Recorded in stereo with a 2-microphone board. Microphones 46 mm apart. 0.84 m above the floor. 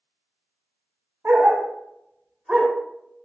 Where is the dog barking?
60° right (ahead or behind), 0.8 m; by 2.7 s 10° right (ahead or behind), 0.9 m.